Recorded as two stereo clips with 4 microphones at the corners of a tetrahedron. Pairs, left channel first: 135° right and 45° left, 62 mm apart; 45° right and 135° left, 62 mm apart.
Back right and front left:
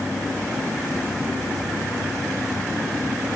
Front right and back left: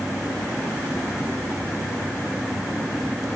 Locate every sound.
Only background noise.